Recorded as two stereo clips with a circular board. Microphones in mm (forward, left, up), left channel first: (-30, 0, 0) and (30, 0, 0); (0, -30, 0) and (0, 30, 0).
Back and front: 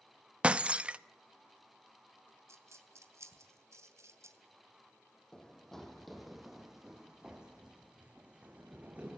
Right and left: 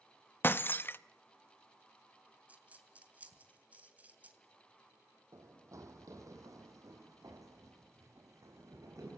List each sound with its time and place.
0.4 s breaking glass: 55° right, 0.6 m
2.5 s a dropped coin: 30° left, 2.5 m
5.3 s running footsteps: 105° left, 2.5 m; by 9.2 s 65° left, 5 m